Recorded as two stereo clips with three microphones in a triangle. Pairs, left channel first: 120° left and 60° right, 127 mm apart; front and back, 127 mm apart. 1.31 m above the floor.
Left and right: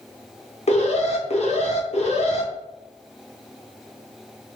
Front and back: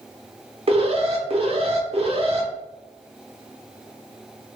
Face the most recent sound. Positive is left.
turn(degrees=145)